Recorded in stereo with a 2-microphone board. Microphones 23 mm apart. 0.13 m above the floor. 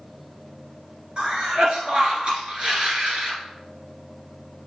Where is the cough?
50° right (ahead or behind), 2 m.